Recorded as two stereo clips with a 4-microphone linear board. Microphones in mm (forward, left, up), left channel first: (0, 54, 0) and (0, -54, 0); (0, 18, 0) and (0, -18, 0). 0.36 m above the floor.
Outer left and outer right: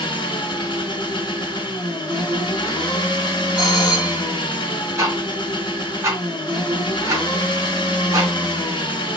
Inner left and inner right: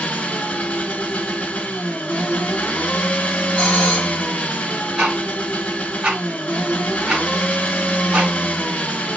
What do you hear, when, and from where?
0.0 s an engine running: 50° left (ahead or behind), 1.0 m
3.6 s a doorbell: 35° left (ahead or behind), 2 m
5.0 s ticking: 30° right (ahead or behind), 2 m